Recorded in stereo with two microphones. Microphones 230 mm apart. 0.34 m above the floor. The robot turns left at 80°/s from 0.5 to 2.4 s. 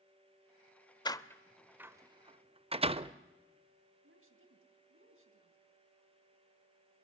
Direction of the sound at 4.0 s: 65° right (ahead or behind).